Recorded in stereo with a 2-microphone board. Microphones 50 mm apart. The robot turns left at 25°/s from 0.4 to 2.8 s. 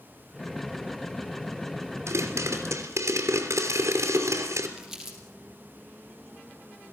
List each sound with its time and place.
2.1 s a pop: 65° right (ahead or behind), 3 m; by 4.7 s 80° right, 3 m
4.8 s crumpling: 10° right (ahead or behind), 5.5 m